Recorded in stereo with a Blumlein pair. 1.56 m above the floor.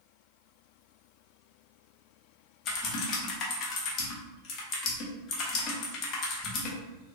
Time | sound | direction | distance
2.6 | typing on a keyboard | 30° left | 0.9 m